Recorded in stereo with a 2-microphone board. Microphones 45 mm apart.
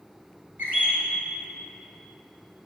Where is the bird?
45° right (ahead or behind), 2 m.